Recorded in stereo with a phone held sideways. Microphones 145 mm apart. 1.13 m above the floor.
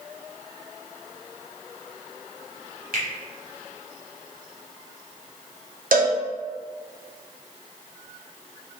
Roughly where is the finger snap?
Right.